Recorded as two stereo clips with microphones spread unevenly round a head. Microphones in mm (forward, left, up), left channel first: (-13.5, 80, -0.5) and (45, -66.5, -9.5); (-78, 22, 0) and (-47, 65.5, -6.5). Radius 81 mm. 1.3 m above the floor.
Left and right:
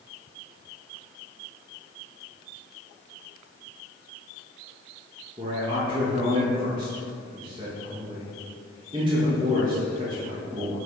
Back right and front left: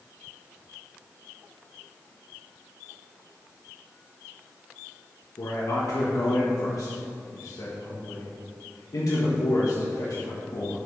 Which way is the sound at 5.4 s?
135° right.